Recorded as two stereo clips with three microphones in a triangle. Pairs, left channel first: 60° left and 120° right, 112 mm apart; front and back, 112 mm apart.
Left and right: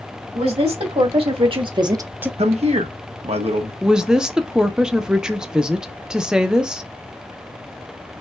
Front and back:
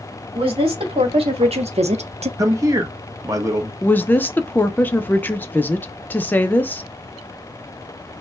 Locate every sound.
0.3 s a woman speaking: 145° right, 2.5 m; by 2.3 s 160° left, 0.6 m
2.4 s a man speaking: 125° right, 1.1 m
3.8 s a woman speaking: 45° right, 0.6 m